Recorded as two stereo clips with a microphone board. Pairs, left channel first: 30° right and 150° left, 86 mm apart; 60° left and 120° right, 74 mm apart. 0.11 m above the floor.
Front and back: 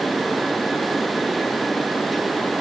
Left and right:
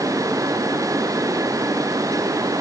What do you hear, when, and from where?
Only background noise.